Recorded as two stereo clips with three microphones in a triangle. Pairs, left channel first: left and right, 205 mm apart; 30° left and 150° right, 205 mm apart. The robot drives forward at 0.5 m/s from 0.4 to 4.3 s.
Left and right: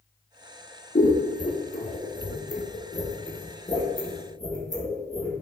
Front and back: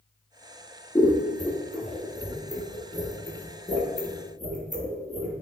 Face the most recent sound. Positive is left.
turn(degrees=160)